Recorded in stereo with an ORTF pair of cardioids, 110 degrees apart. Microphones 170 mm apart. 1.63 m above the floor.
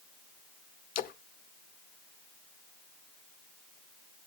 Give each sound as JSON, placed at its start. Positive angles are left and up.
{"t": 0.9, "sound": "a splash", "azimuth_deg": 60, "distance_m": 0.8}